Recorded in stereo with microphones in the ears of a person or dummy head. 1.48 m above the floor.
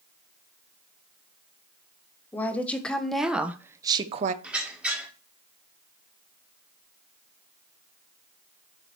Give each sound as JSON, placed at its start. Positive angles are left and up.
{"t": 2.3, "sound": "a woman speaking", "side_deg": 5, "distance_m": 1.6}
{"t": 4.4, "sound": "a squeak", "side_deg": -15, "distance_m": 1.7}